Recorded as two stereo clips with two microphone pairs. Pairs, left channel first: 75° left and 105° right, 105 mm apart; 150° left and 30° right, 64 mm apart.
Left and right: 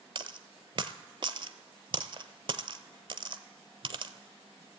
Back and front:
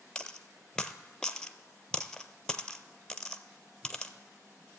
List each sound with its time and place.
0.1 s a dropped coin: 135° right, 0.6 m